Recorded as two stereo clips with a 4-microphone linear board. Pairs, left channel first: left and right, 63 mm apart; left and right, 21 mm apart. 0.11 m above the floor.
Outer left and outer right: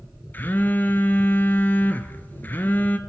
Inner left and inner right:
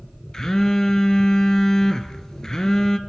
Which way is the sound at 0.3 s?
30° left (ahead or behind).